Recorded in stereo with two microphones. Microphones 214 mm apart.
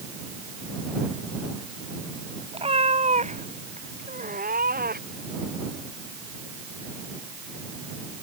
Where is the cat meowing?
25° right (ahead or behind); by 5.3 s 45° right (ahead or behind).